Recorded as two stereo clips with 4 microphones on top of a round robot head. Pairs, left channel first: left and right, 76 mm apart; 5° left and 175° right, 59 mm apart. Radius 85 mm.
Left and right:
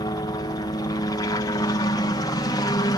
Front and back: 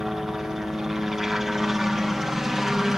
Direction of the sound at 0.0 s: 100° left.